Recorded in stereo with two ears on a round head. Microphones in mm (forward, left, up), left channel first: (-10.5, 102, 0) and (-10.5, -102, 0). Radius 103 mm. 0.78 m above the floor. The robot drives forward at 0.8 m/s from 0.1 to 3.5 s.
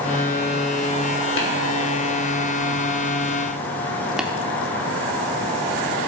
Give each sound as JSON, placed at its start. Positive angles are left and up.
{"t": 1.4, "sound": "tapping", "side_deg": 55, "distance_m": 1.9}
{"t": 4.2, "sound": "tapping", "side_deg": -5, "distance_m": 0.6}